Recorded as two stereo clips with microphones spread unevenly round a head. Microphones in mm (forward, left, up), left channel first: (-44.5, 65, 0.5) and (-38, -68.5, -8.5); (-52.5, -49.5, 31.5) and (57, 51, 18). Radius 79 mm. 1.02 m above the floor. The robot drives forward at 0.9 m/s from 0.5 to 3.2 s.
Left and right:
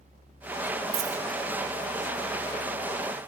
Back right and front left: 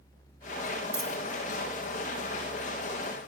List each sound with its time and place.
0.9 s a dropped coin: 45° right, 0.6 m; by 1.2 s 70° right, 0.5 m